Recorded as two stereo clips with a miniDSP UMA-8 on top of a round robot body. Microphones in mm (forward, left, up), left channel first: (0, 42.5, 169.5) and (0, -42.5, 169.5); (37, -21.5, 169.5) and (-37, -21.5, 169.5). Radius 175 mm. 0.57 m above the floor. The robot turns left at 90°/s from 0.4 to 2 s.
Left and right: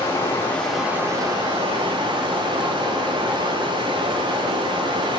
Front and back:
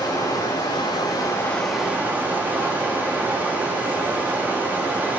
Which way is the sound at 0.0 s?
30° left.